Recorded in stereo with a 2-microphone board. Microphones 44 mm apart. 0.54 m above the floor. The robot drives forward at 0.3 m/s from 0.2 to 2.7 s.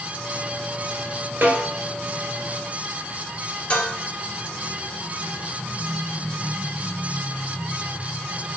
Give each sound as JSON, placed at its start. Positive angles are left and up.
{"t": 1.4, "sound": "a snare drum", "side_deg": -50, "distance_m": 1.4}
{"t": 3.7, "sound": "dishes clattering", "side_deg": 40, "distance_m": 1.3}